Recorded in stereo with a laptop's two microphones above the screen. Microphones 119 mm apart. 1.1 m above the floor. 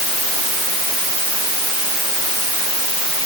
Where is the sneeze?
No sneeze in this recording.